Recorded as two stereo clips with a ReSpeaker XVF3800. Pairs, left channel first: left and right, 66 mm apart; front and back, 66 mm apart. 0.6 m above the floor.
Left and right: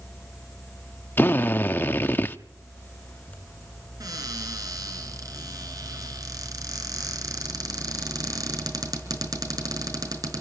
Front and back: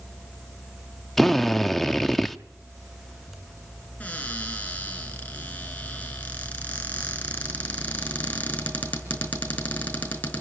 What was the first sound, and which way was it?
A drill, 85° left.